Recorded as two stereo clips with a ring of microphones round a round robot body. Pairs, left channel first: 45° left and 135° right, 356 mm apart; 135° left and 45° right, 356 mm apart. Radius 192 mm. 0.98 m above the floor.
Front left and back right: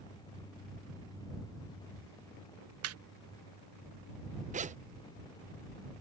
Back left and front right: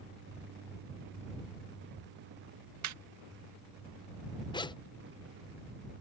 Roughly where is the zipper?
Behind.